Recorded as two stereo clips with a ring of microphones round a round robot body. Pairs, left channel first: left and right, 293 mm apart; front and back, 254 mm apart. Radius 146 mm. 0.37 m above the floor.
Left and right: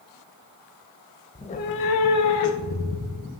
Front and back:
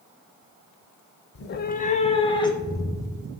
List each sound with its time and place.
1.4 s a cat meowing: 15° left, 0.5 m; by 3.3 s 80° left, 1.7 m